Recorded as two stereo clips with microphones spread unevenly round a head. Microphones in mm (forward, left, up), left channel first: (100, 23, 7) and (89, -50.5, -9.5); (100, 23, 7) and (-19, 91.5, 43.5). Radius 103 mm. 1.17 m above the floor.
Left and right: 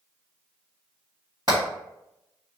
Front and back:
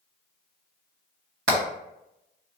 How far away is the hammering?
About 1.4 m.